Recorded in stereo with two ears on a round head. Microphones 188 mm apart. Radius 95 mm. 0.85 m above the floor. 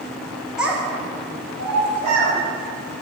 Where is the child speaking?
5° right (ahead or behind), 0.6 m; by 2.4 s 30° right (ahead or behind), 1.7 m.